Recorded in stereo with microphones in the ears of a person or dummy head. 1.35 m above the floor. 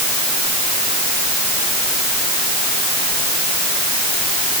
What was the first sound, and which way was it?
Only background noise.